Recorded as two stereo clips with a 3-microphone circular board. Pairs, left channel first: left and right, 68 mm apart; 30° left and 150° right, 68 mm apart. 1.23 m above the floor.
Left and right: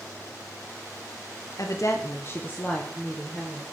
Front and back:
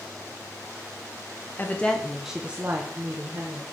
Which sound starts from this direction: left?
A woman speaking, at 1.6 s.